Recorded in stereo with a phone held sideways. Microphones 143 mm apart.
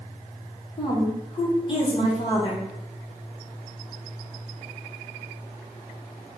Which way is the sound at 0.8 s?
35° left (ahead or behind).